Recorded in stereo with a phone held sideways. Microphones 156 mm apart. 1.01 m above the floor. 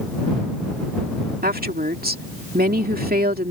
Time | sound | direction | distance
1.4 | a woman speaking | 75° right (ahead or behind) | ?